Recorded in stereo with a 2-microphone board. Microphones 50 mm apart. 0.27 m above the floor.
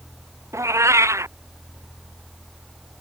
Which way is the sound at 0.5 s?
70° right (ahead or behind).